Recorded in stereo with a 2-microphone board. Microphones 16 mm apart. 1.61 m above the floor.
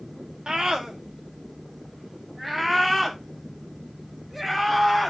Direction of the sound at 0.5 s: 55° right (ahead or behind).